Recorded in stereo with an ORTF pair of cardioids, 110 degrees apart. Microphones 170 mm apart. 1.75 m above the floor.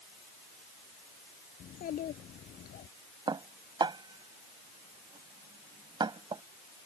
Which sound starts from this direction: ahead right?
Dishes clattering, at 3.3 s.